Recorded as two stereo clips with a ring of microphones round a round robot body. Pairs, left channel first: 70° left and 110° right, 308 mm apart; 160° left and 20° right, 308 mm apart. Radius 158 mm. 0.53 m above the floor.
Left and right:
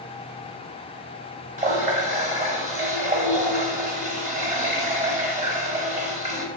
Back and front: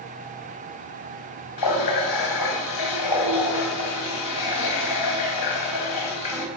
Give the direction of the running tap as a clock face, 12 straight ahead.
6 o'clock.